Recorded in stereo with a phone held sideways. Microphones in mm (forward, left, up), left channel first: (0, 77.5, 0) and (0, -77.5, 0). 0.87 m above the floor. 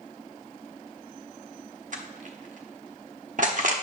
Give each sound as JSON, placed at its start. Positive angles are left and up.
{"t": 1.9, "sound": "crushing", "side_deg": -60, "distance_m": 1.0}